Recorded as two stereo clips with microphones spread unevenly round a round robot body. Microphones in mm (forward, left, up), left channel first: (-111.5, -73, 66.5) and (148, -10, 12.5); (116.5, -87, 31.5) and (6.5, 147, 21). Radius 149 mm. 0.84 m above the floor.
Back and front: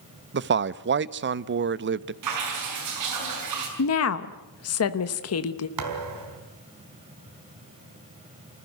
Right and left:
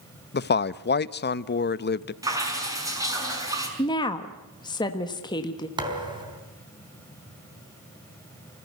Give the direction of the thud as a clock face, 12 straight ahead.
11 o'clock.